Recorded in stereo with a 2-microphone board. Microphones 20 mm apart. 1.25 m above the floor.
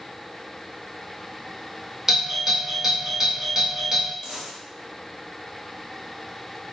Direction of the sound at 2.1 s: 20° right (ahead or behind).